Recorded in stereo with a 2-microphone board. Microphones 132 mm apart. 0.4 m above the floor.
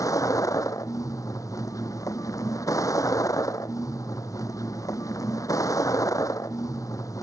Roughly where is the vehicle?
Left.